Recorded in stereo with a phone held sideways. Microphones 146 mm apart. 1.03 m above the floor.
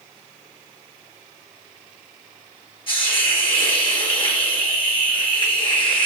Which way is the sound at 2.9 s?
35° left (ahead or behind).